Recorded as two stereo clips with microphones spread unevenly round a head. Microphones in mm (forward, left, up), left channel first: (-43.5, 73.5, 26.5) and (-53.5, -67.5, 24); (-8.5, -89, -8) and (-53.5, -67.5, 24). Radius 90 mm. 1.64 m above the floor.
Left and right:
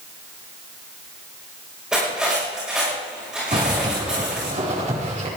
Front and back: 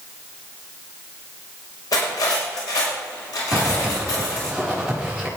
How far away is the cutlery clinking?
About 5.5 m.